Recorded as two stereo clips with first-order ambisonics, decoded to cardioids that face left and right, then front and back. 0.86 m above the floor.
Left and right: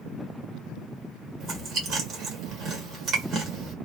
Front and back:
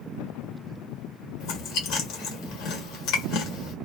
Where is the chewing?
35° right, 1.4 m.